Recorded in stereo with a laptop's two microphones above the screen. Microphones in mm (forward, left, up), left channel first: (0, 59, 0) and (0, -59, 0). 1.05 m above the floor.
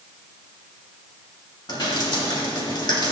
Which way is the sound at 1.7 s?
40° left (ahead or behind).